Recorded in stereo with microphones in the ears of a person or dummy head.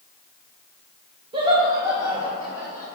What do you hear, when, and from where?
1.3 s laughter: 30° right (ahead or behind), 1.2 m; by 2.9 s 15° right (ahead or behind), 2 m